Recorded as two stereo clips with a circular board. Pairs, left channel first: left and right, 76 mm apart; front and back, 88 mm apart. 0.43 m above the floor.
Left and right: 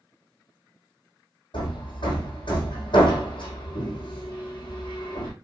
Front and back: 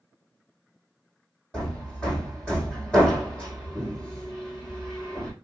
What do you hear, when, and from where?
1.5 s hammering: 80° left, 4.5 m